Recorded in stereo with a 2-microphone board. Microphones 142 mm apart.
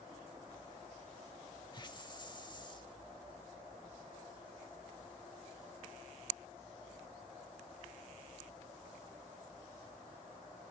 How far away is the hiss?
About 0.6 m.